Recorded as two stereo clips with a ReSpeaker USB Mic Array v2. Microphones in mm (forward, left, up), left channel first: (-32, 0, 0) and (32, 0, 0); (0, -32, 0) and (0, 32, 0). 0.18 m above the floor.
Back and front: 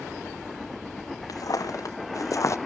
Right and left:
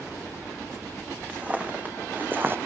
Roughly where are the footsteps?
Behind.